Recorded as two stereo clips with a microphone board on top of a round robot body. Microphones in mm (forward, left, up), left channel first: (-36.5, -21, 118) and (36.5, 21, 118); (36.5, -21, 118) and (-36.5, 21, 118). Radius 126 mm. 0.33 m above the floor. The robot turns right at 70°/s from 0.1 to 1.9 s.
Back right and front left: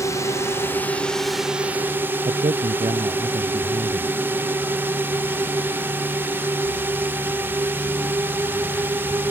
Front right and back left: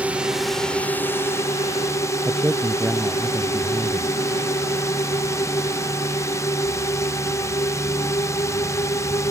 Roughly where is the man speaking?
Left.